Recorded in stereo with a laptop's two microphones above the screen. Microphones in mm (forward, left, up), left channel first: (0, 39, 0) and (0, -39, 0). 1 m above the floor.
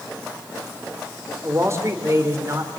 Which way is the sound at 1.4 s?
35° right (ahead or behind).